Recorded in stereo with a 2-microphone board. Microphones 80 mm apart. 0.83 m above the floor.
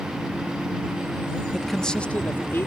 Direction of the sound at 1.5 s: 5° right (ahead or behind).